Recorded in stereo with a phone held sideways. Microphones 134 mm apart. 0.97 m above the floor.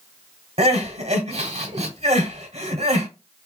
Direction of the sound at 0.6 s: 55° right (ahead or behind).